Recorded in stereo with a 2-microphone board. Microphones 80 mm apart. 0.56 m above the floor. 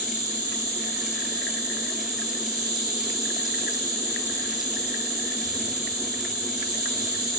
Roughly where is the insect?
Right.